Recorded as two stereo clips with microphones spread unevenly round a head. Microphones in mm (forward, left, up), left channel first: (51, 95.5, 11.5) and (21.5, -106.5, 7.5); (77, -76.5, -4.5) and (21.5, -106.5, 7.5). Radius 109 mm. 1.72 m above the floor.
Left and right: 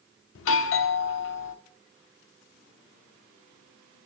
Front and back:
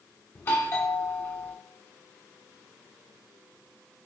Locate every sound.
0.3 s a doorbell: 85° left, 1.0 m